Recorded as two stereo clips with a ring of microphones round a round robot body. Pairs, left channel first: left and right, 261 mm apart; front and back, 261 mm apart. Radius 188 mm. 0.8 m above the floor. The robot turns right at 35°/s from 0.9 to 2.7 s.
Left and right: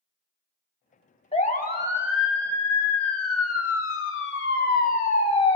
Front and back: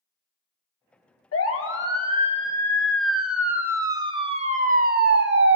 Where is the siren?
25° left, 3.5 m; by 5.6 s 160° left, 2.0 m.